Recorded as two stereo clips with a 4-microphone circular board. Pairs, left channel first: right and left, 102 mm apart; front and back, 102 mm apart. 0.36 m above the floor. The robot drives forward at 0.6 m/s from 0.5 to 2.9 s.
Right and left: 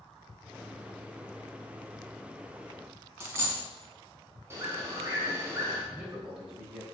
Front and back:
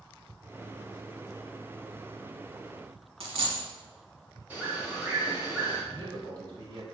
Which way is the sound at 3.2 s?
155° left.